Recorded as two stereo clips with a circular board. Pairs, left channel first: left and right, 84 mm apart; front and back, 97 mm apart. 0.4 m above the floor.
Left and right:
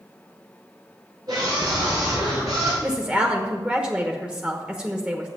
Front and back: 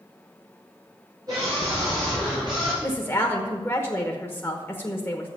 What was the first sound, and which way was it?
A scream, 130° right.